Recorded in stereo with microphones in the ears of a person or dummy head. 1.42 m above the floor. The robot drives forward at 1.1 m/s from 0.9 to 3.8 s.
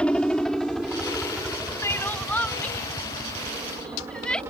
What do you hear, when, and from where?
0.0 s a helicopter: centre (ahead or behind); by 4.5 s 20° right (ahead or behind)
1.8 s crying: 15° left (ahead or behind); by 4.4 s 5° left (ahead or behind)